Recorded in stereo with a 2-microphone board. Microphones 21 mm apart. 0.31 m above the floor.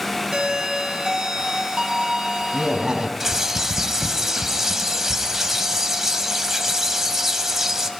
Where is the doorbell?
45° right (ahead or behind), 2.5 m.